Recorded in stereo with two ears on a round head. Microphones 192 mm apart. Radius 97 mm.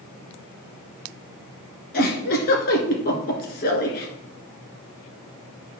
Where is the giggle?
45° left (ahead or behind), 1.6 m.